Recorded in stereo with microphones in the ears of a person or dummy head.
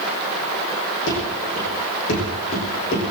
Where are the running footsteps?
75° left (ahead or behind), 6 m; by 3.1 s 50° left (ahead or behind), 5.5 m.